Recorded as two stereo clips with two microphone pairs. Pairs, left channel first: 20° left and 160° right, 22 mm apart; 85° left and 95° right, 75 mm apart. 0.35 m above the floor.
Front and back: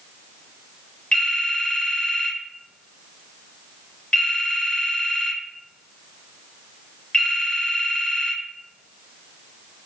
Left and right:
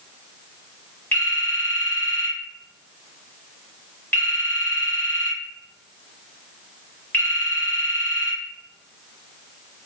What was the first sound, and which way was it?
A phone ringing, 20° left.